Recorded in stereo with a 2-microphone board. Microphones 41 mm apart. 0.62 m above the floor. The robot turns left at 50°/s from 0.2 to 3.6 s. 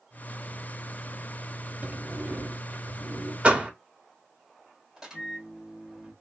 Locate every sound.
1.8 s a sliding door: 45° right, 0.7 m; by 3.3 s 120° right, 0.7 m
3.4 s a door slam: 30° right (ahead or behind), 0.9 m; by 3.7 s 25° right (ahead or behind), 0.9 m
5.0 s a microwave: 15° right (ahead or behind), 1.7 m